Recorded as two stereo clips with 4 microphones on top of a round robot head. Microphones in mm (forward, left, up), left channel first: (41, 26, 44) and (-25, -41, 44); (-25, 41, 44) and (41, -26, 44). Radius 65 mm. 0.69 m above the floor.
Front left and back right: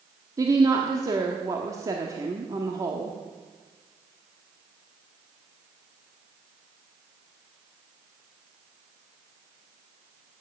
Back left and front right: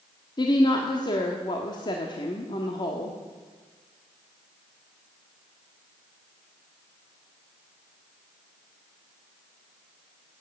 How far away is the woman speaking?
About 1.3 m.